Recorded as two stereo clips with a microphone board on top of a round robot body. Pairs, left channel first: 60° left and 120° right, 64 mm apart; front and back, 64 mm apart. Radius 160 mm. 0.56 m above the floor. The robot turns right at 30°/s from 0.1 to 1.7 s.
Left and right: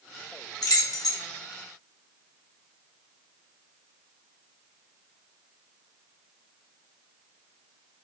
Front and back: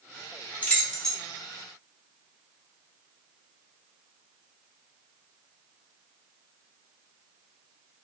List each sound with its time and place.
0.6 s keys jangling: 65° left, 1.1 m; by 1.2 s 85° left, 1.1 m